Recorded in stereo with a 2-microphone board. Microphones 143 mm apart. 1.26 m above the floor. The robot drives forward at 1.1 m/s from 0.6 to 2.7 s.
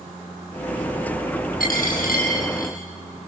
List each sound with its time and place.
1.6 s a dropped coin: 85° left, 9 m; by 2.8 s 80° left, 9 m